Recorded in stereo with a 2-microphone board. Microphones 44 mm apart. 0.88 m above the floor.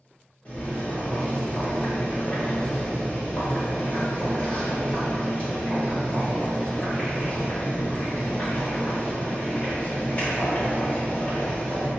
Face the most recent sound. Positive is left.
turn(degrees=30)  # may be behind; listen again after turning